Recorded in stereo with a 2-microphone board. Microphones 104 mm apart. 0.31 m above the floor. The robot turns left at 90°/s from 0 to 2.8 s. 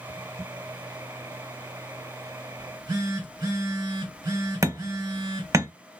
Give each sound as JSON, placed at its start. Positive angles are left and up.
{"t": 2.6, "sound": "a phone buzzing", "side_deg": -50, "distance_m": 1.2}
{"t": 4.6, "sound": "hammering", "side_deg": -30, "distance_m": 0.6}